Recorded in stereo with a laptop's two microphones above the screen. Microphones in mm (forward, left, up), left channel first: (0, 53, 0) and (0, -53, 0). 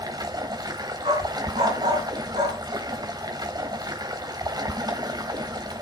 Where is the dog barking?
80° right, 5 m.